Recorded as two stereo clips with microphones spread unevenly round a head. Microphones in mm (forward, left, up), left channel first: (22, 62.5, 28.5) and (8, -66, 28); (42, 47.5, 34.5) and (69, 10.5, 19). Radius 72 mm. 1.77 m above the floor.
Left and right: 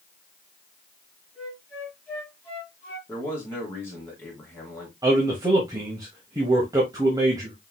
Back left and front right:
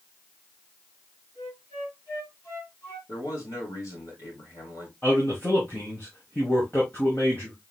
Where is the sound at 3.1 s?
160° left, 2.5 m.